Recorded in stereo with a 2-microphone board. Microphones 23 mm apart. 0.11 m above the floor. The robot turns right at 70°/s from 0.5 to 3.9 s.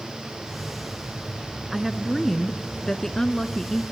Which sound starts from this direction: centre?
A woman speaking, at 1.7 s.